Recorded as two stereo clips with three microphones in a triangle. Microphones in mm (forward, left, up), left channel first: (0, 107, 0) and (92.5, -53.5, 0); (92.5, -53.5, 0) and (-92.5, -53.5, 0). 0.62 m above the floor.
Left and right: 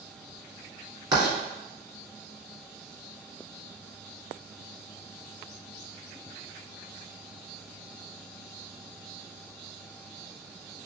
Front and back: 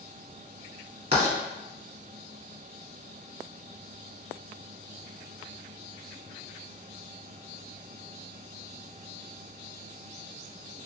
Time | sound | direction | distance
1.1 | writing | 125° right | 1.7 m